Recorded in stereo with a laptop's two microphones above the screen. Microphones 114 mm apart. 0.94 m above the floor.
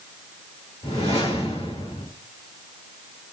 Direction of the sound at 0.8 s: 65° left (ahead or behind).